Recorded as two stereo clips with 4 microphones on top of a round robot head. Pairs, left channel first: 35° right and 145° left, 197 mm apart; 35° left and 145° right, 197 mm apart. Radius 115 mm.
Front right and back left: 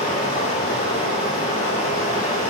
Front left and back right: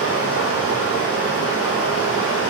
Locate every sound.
0.0 s running water: 25° left, 4 m